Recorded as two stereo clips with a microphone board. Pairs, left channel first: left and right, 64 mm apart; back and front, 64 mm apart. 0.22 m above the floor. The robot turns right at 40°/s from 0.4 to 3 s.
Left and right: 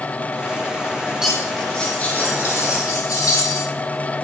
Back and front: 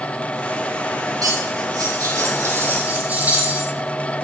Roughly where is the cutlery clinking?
Ahead.